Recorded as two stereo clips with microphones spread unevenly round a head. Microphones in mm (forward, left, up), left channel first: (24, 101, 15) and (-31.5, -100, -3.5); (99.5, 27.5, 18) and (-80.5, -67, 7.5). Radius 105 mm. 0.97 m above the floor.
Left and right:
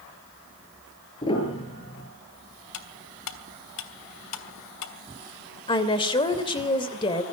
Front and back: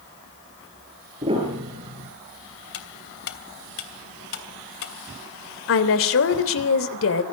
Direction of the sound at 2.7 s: 75° left.